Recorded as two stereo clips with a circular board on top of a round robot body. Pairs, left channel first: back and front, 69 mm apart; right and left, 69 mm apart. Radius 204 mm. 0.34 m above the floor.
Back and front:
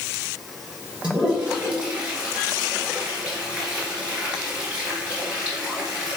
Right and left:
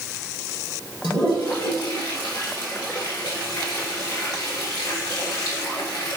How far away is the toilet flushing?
About 1.9 m.